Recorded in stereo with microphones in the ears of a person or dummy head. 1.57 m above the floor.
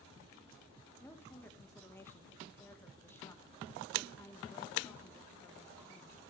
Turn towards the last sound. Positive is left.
turn(degrees=15)  # may be behind; listen again after turning